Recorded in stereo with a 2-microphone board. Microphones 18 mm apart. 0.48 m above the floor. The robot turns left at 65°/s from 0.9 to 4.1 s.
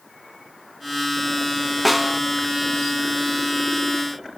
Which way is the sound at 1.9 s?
5° left (ahead or behind).